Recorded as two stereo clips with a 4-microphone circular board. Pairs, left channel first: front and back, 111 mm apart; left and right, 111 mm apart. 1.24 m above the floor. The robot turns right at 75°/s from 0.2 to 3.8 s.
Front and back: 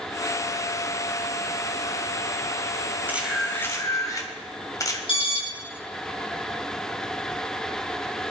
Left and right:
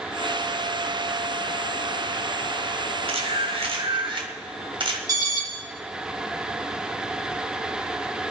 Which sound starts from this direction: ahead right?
An alarm, at 5.1 s.